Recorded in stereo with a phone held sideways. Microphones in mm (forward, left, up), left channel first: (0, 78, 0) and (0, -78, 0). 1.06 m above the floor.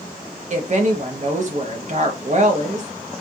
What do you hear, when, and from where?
0.5 s a woman speaking: 50° right (ahead or behind), 0.8 m